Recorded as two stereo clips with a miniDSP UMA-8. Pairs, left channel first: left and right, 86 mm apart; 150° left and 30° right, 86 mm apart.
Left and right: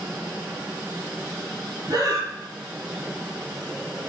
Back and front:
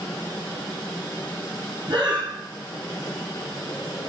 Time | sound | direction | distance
1.9 | breathing | 50° right | 1.0 m